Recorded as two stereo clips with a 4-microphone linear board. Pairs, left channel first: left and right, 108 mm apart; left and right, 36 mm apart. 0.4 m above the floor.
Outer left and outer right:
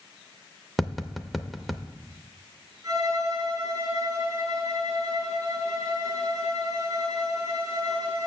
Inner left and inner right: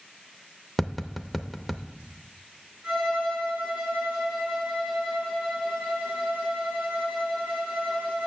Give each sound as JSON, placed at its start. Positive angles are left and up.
{"t": 0.8, "sound": "tapping", "side_deg": 0, "distance_m": 0.5}
{"t": 2.8, "sound": "a violin", "side_deg": -35, "distance_m": 5.5}